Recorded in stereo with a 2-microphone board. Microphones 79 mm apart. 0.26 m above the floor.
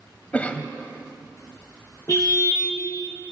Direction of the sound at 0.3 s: 20° left (ahead or behind).